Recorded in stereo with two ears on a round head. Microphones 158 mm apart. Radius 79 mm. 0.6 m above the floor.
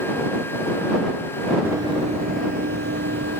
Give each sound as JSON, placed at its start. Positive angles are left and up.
{"t": 1.6, "sound": "running footsteps", "side_deg": -10}